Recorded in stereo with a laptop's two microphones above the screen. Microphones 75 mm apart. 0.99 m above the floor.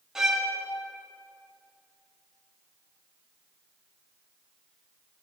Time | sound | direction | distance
0.1 | a violin | 5° right (ahead or behind) | 1.8 m